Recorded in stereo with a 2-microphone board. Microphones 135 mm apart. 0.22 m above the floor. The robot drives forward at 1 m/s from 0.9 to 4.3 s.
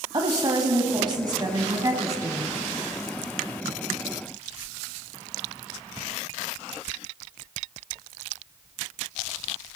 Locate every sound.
0.1 s a woman speaking: 35° right (ahead or behind), 1.2 m; by 2.6 s 20° right (ahead or behind), 2.0 m